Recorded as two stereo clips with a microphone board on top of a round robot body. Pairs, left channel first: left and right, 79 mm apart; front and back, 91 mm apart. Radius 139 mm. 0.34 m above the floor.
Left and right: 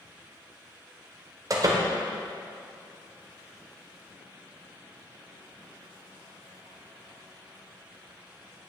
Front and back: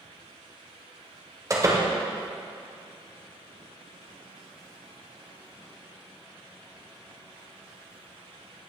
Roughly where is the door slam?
Behind right.